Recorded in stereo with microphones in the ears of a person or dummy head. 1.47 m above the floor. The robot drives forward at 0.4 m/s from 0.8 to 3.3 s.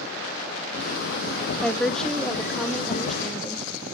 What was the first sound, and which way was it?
A woman speaking, 5° left (ahead or behind).